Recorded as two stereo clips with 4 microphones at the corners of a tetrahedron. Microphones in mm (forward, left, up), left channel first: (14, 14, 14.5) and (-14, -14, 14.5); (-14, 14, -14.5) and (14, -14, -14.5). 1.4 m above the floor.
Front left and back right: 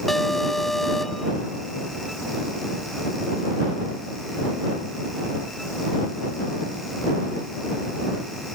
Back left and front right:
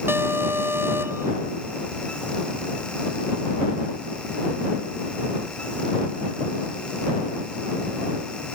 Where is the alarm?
40° right.